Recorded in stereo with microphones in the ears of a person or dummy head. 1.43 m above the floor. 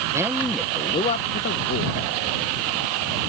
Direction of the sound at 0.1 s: 10° right (ahead or behind).